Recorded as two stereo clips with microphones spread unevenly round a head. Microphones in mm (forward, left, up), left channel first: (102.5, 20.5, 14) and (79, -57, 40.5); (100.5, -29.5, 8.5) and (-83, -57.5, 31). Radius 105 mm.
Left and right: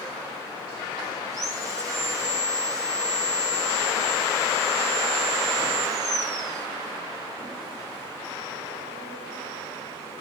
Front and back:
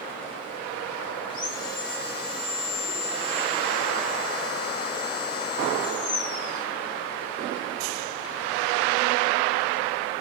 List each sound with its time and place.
1.3 s sawing: 55° right, 5.5 m